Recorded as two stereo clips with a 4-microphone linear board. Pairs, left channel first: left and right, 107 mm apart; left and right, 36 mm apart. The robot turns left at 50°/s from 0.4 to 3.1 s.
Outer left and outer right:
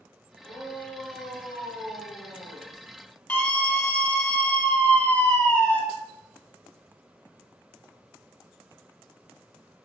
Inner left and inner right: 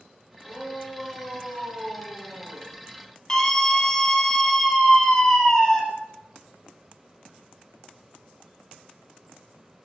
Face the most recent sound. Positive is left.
turn(degrees=10)  # may be behind; listen again after turning